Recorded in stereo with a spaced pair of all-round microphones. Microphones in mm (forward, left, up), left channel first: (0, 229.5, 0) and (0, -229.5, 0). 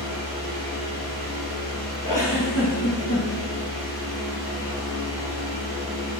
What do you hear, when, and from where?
0.0 s a fan: 65° left (ahead or behind), 1.2 m
2.0 s a giggle: 40° left (ahead or behind), 1.2 m